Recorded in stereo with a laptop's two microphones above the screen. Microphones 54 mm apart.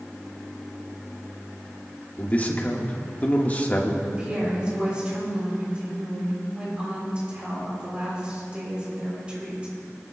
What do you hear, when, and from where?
2.2 s a man speaking: 30° left (ahead or behind), 1.4 m
4.0 s a woman speaking: 20° right (ahead or behind), 3 m